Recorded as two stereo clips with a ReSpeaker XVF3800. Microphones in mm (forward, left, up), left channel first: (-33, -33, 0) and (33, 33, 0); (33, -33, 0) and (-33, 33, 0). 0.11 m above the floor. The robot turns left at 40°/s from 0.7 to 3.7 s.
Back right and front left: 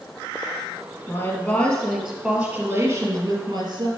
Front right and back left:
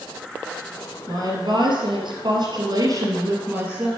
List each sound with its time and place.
1.1 s a woman speaking: 175° left, 1.9 m; by 3.9 s 70° left, 1.9 m